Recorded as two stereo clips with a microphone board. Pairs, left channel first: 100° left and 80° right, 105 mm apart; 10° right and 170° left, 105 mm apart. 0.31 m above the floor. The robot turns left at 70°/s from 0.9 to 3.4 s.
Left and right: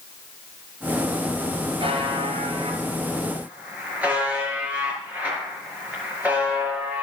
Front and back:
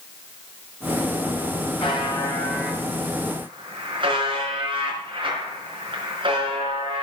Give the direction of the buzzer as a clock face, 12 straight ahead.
1 o'clock.